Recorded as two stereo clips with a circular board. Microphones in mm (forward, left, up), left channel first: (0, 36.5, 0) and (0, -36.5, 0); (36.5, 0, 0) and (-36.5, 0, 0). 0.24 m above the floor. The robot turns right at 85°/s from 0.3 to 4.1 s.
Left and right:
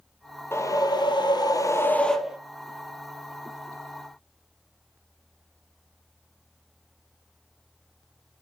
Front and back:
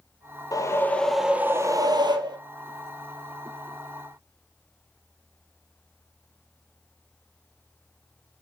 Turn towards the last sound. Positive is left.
turn(degrees=-20)